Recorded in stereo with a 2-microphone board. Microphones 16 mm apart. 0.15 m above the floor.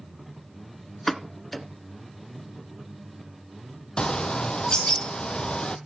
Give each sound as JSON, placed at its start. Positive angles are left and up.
{"t": 1.1, "sound": "a pop", "side_deg": 15, "distance_m": 1.1}
{"t": 4.0, "sound": "a bird", "side_deg": 70, "distance_m": 0.8}